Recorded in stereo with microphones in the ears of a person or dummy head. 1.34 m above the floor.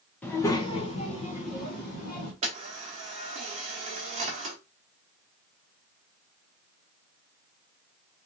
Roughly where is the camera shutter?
Right.